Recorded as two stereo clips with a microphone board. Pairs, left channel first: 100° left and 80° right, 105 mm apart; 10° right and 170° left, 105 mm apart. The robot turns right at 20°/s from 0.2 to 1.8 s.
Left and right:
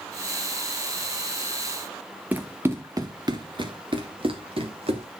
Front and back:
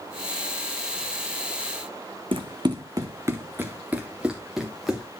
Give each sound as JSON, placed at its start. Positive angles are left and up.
{"t": 2.3, "sound": "running footsteps", "azimuth_deg": -155, "distance_m": 1.3}